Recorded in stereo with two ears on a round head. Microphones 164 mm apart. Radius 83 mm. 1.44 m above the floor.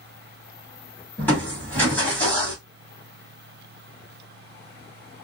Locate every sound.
1.2 s crushing: 10° left (ahead or behind), 1.5 m